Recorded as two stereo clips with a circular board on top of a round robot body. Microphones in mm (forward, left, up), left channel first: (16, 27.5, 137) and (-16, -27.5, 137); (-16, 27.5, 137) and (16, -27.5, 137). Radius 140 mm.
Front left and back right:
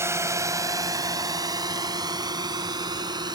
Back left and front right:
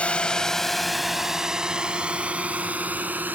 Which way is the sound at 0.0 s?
170° right.